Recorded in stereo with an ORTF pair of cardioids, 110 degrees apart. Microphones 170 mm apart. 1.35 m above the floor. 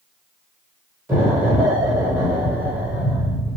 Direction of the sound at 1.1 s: 15° right.